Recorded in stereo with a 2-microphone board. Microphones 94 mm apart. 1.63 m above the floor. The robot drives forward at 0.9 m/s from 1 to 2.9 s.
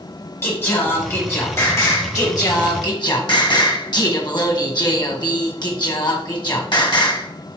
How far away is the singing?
About 3.5 m.